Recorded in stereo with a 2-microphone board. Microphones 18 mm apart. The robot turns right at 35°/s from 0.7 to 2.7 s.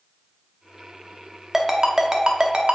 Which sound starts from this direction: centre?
A ringtone, at 1.5 s.